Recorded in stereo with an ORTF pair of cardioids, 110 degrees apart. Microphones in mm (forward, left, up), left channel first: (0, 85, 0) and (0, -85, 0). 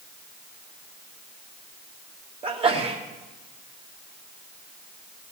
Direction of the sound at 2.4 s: 35° right.